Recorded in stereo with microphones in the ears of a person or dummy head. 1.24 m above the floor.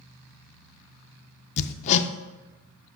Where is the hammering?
40° left (ahead or behind), 0.5 m.